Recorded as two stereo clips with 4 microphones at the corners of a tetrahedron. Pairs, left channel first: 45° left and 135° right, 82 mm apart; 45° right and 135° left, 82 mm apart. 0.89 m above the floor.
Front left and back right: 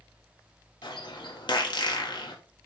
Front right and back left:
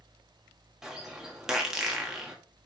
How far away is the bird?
About 1.6 m.